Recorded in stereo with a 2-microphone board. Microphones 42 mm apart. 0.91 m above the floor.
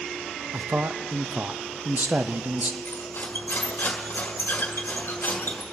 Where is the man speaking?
45° right (ahead or behind), 0.6 m.